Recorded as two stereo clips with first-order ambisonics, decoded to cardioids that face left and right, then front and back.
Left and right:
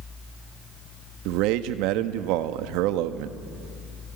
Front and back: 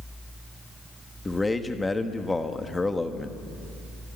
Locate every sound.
1.2 s a man speaking: 80° right, 1.1 m